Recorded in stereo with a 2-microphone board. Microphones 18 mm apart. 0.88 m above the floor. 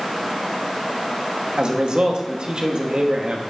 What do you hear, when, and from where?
1.6 s a man speaking: 55° right (ahead or behind), 1.6 m